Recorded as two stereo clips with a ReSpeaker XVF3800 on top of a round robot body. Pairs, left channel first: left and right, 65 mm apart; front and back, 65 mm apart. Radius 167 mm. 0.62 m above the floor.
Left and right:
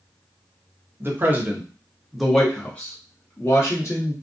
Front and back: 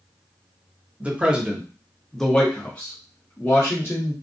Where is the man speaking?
120° right, 1.1 m; by 4.1 s 50° left, 1.4 m.